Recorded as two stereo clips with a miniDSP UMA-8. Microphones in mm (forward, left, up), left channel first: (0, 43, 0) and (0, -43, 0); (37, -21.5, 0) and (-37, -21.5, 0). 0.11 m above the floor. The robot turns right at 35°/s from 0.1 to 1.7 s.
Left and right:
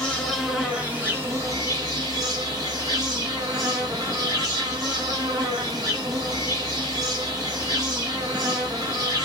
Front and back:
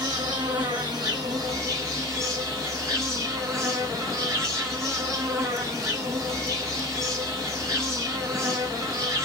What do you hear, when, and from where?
0.0 s an insect: 175° left, 1.0 m; by 9.2 s 130° right, 1.0 m